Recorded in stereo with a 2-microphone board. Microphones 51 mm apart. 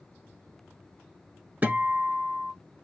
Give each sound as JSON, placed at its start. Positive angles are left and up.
{"t": 1.6, "sound": "a guitar", "side_deg": -30, "distance_m": 1.6}